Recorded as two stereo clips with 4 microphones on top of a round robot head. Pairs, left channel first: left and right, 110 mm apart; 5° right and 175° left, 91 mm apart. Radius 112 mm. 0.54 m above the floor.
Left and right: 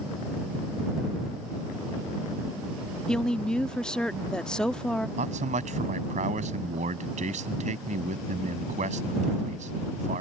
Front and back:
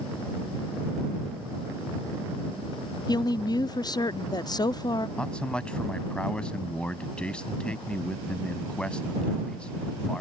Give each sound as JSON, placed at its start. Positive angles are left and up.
{"t": 3.1, "sound": "a woman speaking", "azimuth_deg": 10}
{"t": 5.2, "sound": "a man speaking", "azimuth_deg": -85}